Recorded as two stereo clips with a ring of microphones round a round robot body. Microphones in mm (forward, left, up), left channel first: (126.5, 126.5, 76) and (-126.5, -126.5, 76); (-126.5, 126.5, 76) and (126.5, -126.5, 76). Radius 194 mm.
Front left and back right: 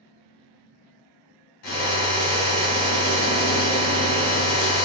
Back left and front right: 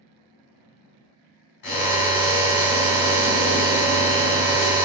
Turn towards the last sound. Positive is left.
turn(degrees=95)